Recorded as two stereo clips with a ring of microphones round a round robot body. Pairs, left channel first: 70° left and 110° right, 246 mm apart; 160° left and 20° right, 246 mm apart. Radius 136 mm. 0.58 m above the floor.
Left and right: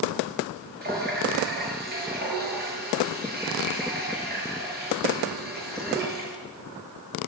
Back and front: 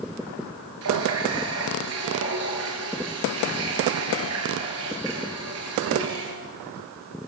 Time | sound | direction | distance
0.8 | a running tap | 55° right | 7.5 m